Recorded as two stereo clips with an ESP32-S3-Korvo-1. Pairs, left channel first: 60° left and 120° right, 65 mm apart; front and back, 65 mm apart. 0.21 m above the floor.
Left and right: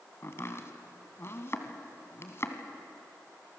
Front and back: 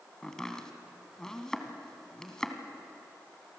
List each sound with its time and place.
0.2 s chopping: 75° left, 2.0 m